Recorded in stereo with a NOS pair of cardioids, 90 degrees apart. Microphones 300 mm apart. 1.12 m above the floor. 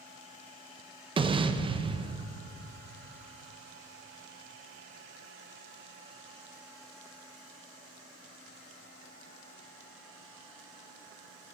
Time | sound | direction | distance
1.2 | an explosion | 15° right | 0.5 m